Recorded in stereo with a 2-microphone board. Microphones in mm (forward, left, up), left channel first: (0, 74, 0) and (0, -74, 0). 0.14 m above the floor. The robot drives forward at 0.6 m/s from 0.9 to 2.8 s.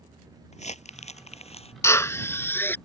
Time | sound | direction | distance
0.5 | crumpling | 50° left (ahead or behind) | ?
1.8 | a drill | 20° left (ahead or behind) | ?